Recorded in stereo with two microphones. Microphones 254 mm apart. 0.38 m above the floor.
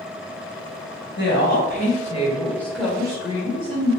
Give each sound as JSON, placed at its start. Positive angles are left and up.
{"t": 1.2, "sound": "a woman speaking", "side_deg": 45, "distance_m": 1.9}